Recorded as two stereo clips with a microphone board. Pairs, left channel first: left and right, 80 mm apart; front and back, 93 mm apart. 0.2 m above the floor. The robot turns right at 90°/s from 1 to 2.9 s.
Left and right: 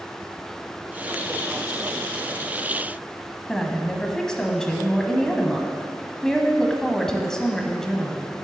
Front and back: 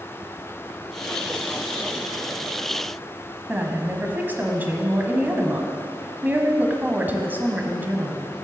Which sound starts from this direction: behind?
A woman speaking, at 3.5 s.